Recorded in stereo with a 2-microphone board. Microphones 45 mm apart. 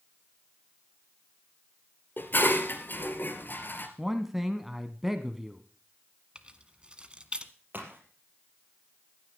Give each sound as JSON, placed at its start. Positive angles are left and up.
{"t": 2.2, "sound": "dishes clattering", "side_deg": 45, "distance_m": 2.0}
{"t": 4.0, "sound": "a man speaking", "side_deg": -5, "distance_m": 1.1}
{"t": 6.3, "sound": "keys jangling", "side_deg": -20, "distance_m": 1.2}
{"t": 7.7, "sound": "a crack", "side_deg": -40, "distance_m": 4.5}